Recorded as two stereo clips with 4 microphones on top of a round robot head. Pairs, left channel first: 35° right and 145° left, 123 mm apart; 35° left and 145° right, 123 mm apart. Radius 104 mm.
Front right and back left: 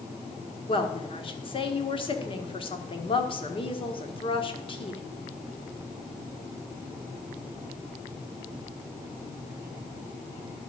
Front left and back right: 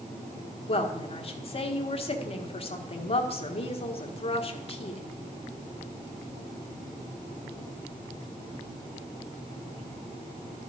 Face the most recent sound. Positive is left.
turn(degrees=5)